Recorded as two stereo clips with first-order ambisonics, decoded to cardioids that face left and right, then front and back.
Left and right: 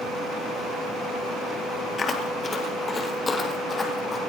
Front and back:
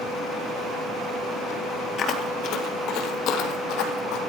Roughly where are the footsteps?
Ahead left.